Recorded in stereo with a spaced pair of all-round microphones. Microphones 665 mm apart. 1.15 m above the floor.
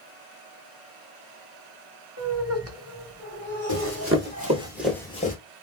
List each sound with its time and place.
2.2 s laughter: 20° right (ahead or behind), 1.3 m
3.7 s running footsteps: 25° right (ahead or behind), 1.5 m; by 5.3 s 15° left (ahead or behind), 1.2 m